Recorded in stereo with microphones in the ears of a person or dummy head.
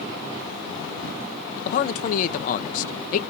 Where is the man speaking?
45° left (ahead or behind), 0.5 m.